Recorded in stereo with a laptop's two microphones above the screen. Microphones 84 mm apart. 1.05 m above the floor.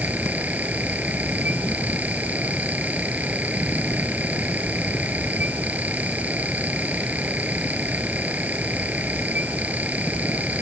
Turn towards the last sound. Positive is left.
turn(degrees=-20)  # may be behind; listen again after turning